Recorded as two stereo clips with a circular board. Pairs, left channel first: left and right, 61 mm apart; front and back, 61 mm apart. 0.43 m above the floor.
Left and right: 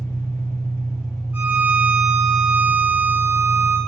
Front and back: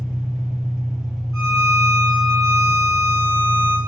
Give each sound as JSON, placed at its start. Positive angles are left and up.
{"t": 0.0, "sound": "an engine running", "azimuth_deg": 100, "distance_m": 2.0}
{"t": 1.3, "sound": "a violin", "azimuth_deg": -150, "distance_m": 1.5}